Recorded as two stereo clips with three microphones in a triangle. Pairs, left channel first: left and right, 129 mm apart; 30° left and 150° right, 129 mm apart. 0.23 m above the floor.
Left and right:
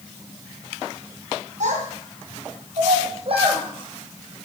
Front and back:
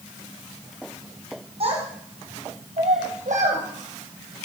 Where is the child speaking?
110° right, 4.5 m; by 4.5 s 150° right, 3 m.